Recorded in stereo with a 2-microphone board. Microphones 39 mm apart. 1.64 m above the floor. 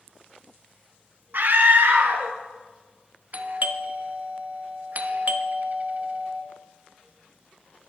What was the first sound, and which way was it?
A scream, 55° right (ahead or behind).